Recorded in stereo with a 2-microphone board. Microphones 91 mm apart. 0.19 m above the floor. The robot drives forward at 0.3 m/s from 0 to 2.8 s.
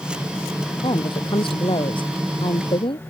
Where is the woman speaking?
65° left (ahead or behind).